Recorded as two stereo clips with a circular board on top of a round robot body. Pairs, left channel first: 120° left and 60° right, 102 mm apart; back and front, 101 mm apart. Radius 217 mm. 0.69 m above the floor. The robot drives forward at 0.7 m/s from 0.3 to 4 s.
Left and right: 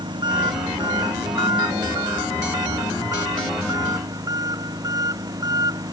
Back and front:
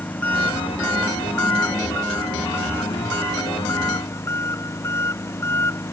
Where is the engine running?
105° right; by 5.9 s 115° right.